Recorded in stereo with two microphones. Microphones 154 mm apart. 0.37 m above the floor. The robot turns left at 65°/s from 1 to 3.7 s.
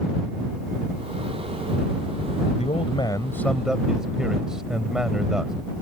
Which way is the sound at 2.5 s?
70° left.